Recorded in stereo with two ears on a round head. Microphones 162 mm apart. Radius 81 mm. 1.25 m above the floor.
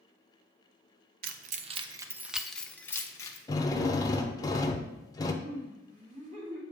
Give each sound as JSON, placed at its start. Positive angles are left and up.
{"t": 1.2, "sound": "keys jangling", "side_deg": -55, "distance_m": 0.6}
{"t": 3.5, "sound": "a drill", "side_deg": 20, "distance_m": 0.7}
{"t": 5.4, "sound": "laughter", "side_deg": -40, "distance_m": 2.5}